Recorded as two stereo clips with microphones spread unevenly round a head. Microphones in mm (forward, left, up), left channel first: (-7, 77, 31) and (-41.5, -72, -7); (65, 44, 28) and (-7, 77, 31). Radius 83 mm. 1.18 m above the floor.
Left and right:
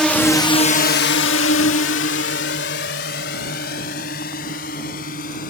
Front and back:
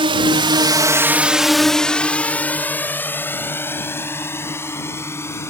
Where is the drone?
165° left; by 5.5 s 30° left.